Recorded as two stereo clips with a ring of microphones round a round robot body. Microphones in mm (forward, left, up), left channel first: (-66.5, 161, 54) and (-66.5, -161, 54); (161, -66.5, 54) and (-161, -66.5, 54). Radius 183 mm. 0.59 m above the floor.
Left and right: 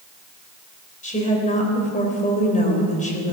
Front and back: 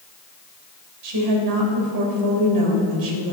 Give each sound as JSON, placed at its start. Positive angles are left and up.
{"t": 1.0, "sound": "a woman speaking", "azimuth_deg": 155, "distance_m": 3.5}